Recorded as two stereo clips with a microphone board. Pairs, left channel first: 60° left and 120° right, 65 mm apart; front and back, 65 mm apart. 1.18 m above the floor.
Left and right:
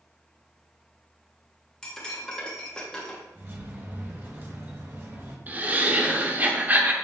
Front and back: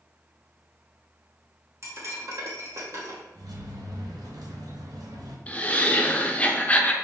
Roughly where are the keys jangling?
Behind.